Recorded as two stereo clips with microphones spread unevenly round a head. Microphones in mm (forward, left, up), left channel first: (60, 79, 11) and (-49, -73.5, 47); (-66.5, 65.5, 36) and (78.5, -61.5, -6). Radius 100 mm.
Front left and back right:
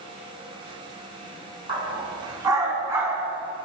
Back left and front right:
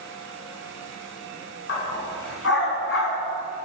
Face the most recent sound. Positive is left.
turn(degrees=155)